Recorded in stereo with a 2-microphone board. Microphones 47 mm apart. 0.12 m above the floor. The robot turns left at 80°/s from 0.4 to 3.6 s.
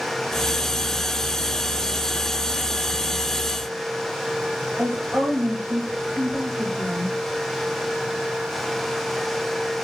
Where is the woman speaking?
40° right (ahead or behind), 2 m.